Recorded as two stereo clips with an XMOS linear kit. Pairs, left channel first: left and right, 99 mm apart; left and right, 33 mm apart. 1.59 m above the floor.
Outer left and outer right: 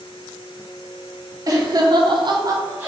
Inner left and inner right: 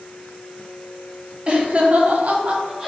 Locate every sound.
1.5 s laughter: 35° right (ahead or behind), 1.2 m; by 2.9 s 20° right (ahead or behind), 1.0 m